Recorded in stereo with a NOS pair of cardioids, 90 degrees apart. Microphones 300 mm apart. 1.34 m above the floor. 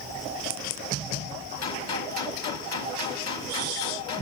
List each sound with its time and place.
1.6 s a gunshot: 60° left, 3 m